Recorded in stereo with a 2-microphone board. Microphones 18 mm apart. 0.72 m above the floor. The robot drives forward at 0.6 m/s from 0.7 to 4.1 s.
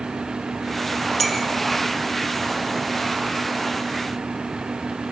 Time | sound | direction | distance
1.2 | a clink | 10° left (ahead or behind) | 1.9 m